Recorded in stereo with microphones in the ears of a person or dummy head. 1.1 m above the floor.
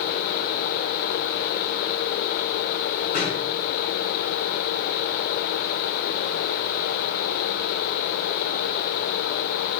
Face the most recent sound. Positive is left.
turn(degrees=45)  # may be behind; listen again after turning